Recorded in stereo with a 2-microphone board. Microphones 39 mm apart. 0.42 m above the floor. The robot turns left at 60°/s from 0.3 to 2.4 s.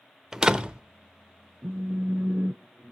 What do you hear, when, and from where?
0.3 s a door slam: 10° right (ahead or behind), 0.8 m; by 0.8 s 30° right (ahead or behind), 0.8 m
1.6 s a phone buzzing: 85° right, 0.5 m; by 2.9 s 130° right, 0.5 m